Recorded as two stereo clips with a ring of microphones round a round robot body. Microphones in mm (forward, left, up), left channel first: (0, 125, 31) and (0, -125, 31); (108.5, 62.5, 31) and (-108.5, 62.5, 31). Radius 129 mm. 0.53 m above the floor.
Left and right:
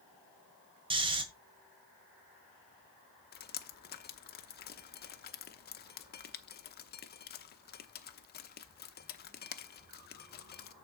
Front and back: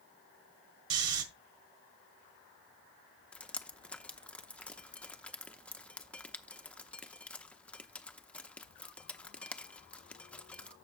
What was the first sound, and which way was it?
Snoring, 160° right.